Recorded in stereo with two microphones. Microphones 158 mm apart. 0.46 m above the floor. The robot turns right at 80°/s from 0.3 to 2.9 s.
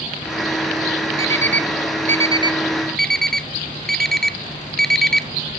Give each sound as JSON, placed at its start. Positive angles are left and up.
{"t": 1.2, "sound": "an alarm clock", "side_deg": -35, "distance_m": 0.8}